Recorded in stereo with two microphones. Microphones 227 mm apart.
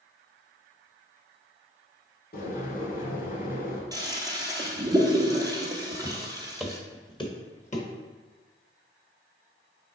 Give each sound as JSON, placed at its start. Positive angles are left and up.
{"t": 2.3, "sound": "boiling", "side_deg": 40, "distance_m": 1.2}
{"t": 3.9, "sound": "a toilet flushing", "side_deg": -15, "distance_m": 0.9}
{"t": 6.0, "sound": "footsteps", "side_deg": -25, "distance_m": 1.1}